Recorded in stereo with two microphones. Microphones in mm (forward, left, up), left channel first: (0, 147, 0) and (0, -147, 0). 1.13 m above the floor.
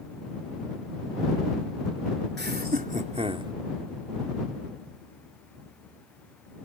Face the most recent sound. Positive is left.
turn(degrees=-15)  # may be behind; listen again after turning